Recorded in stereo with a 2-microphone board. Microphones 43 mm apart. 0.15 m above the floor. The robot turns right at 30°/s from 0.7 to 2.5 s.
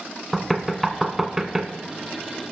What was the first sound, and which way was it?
Knocking, 5° right (ahead or behind).